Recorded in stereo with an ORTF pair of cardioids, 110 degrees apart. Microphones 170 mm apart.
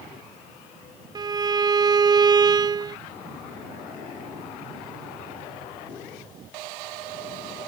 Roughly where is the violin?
Ahead right.